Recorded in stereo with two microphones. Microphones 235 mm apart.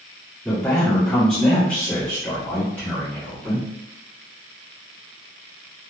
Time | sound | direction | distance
0.5 | a man speaking | centre (ahead or behind) | 1.4 m